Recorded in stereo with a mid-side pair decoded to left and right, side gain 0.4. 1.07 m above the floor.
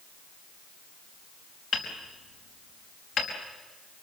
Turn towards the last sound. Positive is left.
turn(degrees=70)